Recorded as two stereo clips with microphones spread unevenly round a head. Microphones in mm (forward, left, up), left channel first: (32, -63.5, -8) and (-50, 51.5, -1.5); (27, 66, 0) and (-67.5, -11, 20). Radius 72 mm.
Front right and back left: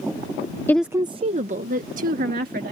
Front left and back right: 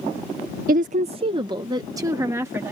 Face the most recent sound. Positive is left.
turn(degrees=150)